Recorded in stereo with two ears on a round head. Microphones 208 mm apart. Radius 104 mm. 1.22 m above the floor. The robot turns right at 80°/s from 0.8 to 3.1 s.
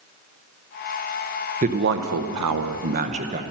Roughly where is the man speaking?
Behind right.